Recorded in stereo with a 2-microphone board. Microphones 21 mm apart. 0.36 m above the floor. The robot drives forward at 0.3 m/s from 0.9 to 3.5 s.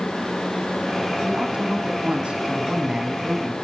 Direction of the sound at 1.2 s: 55° right (ahead or behind).